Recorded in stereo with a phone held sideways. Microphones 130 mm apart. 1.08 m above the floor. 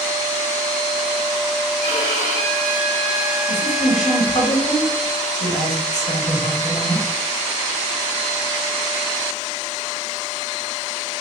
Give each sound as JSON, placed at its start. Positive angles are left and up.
{"t": 1.8, "sound": "a violin", "side_deg": 65, "distance_m": 1.2}
{"t": 3.5, "sound": "a woman speaking", "side_deg": 60, "distance_m": 1.3}